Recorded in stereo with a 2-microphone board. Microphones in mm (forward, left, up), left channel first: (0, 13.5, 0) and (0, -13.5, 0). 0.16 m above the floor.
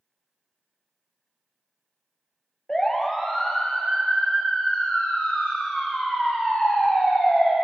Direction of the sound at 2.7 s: 15° left (ahead or behind).